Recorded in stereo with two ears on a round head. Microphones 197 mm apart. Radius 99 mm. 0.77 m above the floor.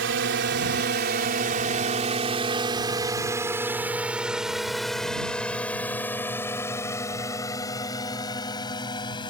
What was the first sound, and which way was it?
A drone, 55° right (ahead or behind).